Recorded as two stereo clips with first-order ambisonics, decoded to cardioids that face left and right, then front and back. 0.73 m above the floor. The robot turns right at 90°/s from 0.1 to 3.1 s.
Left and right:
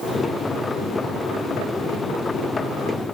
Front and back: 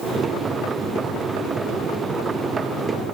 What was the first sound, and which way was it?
Only background noise.